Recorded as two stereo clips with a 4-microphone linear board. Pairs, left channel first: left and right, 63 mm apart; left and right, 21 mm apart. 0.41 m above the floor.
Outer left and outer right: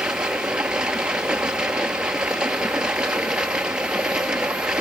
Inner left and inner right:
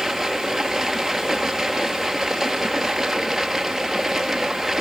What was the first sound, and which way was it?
Running water, 15° right (ahead or behind).